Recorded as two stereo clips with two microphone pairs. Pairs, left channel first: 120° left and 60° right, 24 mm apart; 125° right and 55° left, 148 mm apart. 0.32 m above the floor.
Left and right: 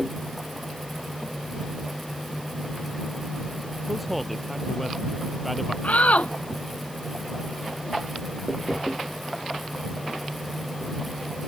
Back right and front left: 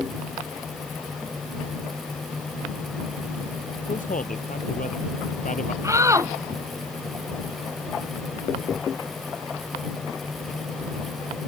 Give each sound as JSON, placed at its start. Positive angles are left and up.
{"t": 3.9, "sound": "a man speaking", "azimuth_deg": -150}
{"t": 5.8, "sound": "a shout", "azimuth_deg": 120}